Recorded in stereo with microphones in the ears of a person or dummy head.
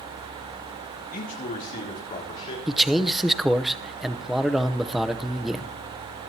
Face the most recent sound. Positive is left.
turn(degrees=0)  # may be behind; listen again after turning